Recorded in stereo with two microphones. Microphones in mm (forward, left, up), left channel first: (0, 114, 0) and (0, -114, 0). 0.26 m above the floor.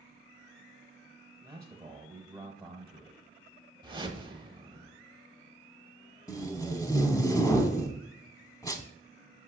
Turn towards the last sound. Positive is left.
turn(degrees=15)  # may be behind; listen again after turning